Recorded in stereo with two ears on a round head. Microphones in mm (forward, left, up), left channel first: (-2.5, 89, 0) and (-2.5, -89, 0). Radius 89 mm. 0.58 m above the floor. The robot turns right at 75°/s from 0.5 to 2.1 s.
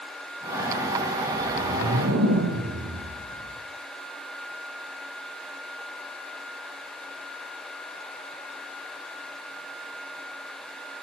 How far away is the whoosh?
About 8.5 m.